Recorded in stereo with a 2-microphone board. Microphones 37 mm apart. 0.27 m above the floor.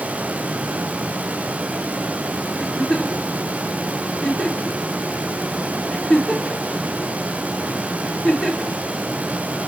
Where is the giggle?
30° left (ahead or behind), 4 m.